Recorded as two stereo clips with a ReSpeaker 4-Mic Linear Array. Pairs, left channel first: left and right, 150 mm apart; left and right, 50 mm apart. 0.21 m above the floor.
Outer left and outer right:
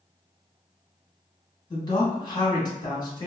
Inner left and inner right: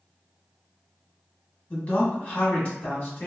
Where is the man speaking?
30° left (ahead or behind), 1.2 m.